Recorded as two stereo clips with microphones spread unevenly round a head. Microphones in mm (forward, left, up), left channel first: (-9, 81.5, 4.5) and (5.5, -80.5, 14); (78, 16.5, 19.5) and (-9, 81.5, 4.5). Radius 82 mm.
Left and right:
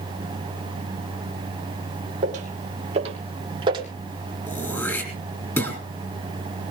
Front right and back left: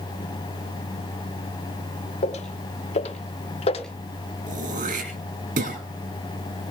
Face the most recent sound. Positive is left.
turn(degrees=175)